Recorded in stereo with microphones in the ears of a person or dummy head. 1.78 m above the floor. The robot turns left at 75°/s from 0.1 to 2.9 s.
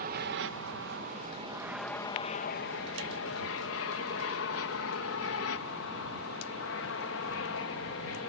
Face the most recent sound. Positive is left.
turn(degrees=65)  # may be behind; listen again after turning